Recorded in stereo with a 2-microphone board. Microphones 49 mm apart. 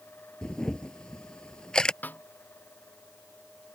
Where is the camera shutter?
15° left (ahead or behind).